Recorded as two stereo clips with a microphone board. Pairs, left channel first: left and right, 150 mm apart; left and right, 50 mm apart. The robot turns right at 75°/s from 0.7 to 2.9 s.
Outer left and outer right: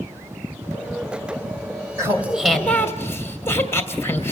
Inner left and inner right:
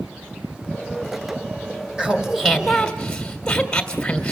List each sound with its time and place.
2.0 s laughter: 40° right, 1.6 m; by 4.3 s 30° left, 1.6 m